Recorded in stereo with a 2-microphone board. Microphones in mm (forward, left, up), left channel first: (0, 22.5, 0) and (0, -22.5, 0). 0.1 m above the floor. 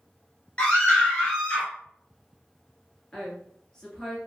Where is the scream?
25° left (ahead or behind), 1.1 m.